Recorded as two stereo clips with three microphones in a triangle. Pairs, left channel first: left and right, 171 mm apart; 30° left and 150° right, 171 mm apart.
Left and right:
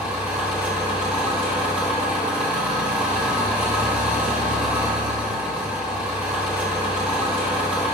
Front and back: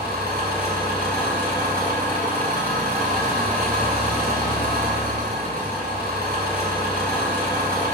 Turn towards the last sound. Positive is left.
turn(degrees=-170)